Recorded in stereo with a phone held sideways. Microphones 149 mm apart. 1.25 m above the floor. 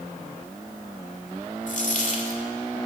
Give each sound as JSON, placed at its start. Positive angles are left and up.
{"t": 1.7, "sound": "a dropped coin", "side_deg": 55, "distance_m": 1.9}